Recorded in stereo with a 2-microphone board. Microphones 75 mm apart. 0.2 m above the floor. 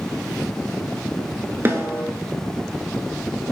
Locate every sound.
1.6 s a snare drum: 35° right (ahead or behind), 0.5 m